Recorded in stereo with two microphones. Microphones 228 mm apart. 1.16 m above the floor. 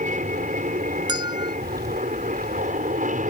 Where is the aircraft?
35° right (ahead or behind).